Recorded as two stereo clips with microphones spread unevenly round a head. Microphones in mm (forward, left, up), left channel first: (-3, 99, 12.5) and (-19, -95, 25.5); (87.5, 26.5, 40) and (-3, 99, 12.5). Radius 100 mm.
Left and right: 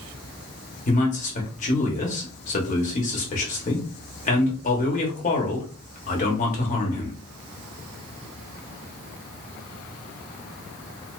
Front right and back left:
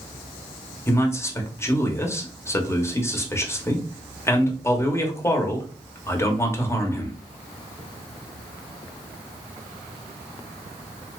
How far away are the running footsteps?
I don't hear running footsteps.